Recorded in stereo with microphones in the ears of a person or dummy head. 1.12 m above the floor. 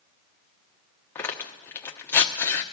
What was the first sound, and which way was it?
Tearing paper, 10° left (ahead or behind).